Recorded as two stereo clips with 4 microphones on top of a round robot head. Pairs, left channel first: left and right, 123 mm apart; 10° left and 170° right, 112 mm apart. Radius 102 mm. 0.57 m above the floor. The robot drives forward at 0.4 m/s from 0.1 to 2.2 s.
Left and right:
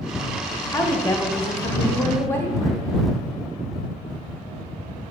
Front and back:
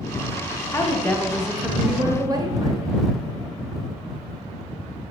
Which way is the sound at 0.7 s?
45° left.